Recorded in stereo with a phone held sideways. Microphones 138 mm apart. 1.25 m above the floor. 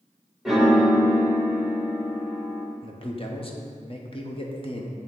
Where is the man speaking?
40° left (ahead or behind), 0.9 m.